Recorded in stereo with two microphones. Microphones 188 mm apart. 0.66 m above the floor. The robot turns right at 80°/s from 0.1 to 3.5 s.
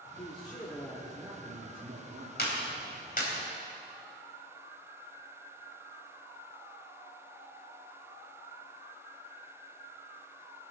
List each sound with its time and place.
0.2 s a man speaking: 115° left, 1.8 m; by 2.3 s 75° right, 1.8 m
2.4 s a clap: 60° left (ahead or behind), 3.5 m; by 3.3 s 40° left (ahead or behind), 3.5 m